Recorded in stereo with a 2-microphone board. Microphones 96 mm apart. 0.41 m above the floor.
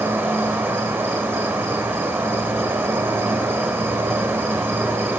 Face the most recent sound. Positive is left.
turn(degrees=-25)  # may be behind; listen again after turning